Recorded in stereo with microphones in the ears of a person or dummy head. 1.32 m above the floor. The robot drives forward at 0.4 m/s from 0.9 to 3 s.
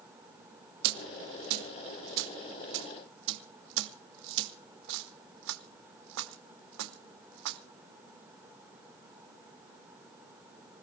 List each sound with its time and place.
0.8 s a dropped coin: 55° right (ahead or behind), 1.9 m; by 7.6 s 65° right (ahead or behind), 1.7 m